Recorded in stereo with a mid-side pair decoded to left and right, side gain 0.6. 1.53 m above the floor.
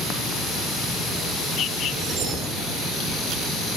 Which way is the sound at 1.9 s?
60° right.